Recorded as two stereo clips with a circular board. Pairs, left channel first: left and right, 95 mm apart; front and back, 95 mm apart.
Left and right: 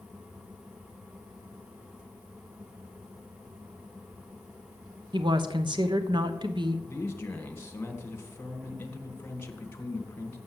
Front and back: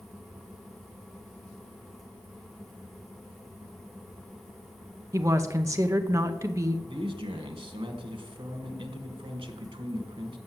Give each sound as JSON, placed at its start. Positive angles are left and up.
{"t": 5.1, "sound": "a woman speaking", "azimuth_deg": -125, "distance_m": 0.9}
{"t": 6.9, "sound": "a man speaking", "azimuth_deg": 160, "distance_m": 1.6}